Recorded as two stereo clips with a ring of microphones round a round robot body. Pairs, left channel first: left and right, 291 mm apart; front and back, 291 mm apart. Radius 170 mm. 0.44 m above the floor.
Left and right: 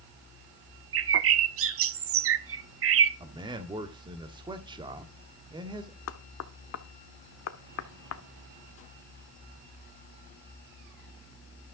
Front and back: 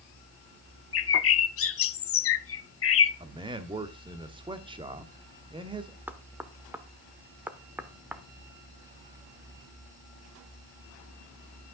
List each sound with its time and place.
0.9 s a bird: 45° right, 0.8 m
3.2 s a man speaking: 135° right, 1.4 m
6.1 s knocking: 95° left, 0.9 m